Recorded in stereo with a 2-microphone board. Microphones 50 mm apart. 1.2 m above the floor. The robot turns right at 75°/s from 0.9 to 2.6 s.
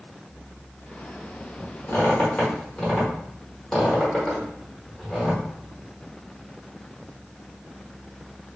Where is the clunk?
I don't hear a clunk.